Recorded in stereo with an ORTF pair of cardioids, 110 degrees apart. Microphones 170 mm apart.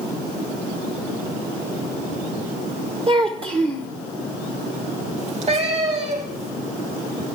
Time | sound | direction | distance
3.1 | a child speaking | 35° right | 0.9 m
5.2 | a cat meowing | 45° right | 3.5 m